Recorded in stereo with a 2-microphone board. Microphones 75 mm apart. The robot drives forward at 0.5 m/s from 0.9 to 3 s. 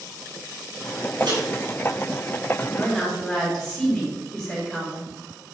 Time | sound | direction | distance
1.2 | a microwave | 75° right (ahead or behind) | 5 m
2.7 | a woman speaking | 5° right (ahead or behind) | 4 m